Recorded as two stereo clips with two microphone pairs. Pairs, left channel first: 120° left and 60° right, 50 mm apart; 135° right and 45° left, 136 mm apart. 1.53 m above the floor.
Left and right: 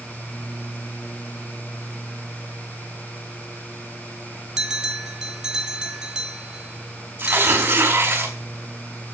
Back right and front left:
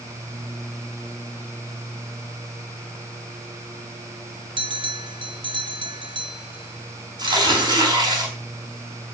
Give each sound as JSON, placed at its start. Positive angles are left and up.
{"t": 4.6, "sound": "a bell", "azimuth_deg": 10, "distance_m": 1.9}
{"t": 7.2, "sound": "tearing paper", "azimuth_deg": -15, "distance_m": 5.5}